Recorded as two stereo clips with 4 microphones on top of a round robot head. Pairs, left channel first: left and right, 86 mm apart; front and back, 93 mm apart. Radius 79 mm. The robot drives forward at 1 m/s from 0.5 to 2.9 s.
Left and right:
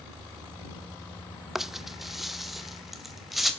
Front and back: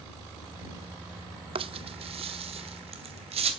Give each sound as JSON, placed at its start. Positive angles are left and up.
{"t": 1.6, "sound": "a rattle", "azimuth_deg": -175, "distance_m": 0.8}